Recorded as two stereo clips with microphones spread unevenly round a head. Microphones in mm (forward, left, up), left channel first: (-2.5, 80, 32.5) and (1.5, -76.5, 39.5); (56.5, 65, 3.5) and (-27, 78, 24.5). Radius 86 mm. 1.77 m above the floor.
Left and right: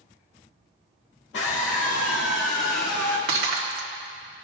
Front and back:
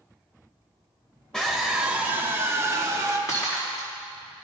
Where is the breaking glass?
85° right, 1.8 m.